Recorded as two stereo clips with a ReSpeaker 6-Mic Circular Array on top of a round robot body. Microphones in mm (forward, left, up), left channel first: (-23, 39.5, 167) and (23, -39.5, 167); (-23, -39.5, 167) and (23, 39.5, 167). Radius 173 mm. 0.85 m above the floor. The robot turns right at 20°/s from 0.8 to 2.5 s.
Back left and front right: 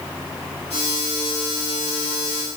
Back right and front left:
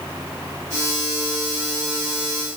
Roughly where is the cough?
I don't hear a cough.